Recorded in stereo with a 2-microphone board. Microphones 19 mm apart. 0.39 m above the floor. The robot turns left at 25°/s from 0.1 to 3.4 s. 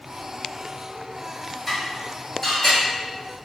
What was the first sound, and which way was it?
Dishes clattering, 5° left (ahead or behind).